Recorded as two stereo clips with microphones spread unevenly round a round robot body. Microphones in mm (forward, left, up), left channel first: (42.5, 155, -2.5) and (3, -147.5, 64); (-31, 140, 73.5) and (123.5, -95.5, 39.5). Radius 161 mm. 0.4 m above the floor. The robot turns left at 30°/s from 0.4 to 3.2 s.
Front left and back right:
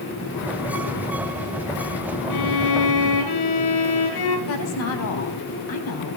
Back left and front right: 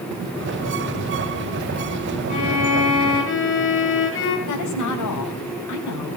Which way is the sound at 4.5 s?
110° left.